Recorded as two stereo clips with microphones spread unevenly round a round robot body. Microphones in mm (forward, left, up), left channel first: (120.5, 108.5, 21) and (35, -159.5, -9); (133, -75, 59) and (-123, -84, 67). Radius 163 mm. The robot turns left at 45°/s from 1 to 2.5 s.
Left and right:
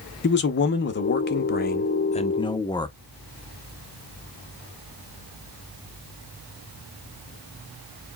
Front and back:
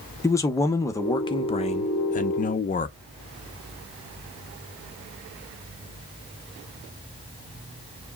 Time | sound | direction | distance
0.2 | a man speaking | 65° left | 0.6 m